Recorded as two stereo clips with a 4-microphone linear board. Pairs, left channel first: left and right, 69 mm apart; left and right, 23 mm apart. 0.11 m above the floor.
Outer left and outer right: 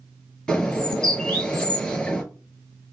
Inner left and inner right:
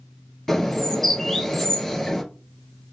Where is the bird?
15° left (ahead or behind), 1.7 m.